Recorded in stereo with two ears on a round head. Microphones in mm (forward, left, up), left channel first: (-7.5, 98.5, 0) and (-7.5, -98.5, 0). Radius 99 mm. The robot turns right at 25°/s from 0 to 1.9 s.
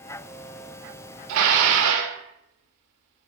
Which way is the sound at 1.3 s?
80° right.